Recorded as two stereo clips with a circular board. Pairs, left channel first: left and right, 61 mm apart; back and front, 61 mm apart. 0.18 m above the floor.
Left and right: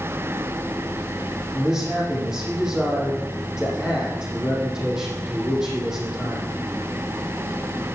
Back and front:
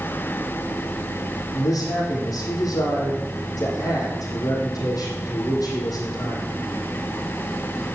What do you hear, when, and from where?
1.5 s a man speaking: 170° right, 6.5 m